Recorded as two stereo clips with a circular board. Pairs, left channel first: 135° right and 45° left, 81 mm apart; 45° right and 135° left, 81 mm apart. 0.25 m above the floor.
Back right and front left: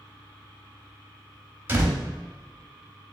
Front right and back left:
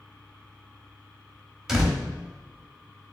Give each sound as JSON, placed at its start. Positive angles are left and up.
{"t": 1.7, "sound": "a door slam", "azimuth_deg": 60, "distance_m": 0.9}